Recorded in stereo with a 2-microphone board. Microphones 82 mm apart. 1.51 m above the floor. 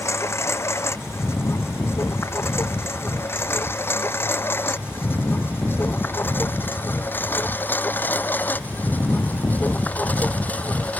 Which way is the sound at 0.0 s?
35° left (ahead or behind).